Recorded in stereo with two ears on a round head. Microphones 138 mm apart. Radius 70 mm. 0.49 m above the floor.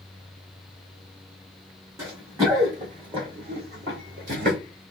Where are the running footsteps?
20° right (ahead or behind), 3 m; by 4.6 s 60° right (ahead or behind), 1.9 m.